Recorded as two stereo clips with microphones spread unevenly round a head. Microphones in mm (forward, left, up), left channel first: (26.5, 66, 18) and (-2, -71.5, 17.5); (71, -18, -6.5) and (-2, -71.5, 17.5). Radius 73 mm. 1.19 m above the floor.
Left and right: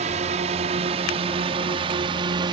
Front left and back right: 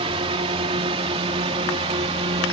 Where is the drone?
140° right; by 2.5 s 160° right.